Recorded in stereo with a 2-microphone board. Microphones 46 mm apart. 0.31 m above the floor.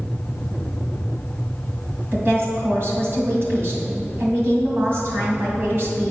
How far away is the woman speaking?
About 2 m.